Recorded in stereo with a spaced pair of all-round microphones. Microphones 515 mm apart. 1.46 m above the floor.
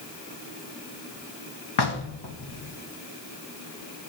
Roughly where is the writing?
No writing in this recording.